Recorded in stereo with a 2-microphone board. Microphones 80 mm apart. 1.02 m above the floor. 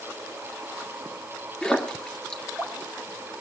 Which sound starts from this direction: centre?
A splash, at 1.6 s.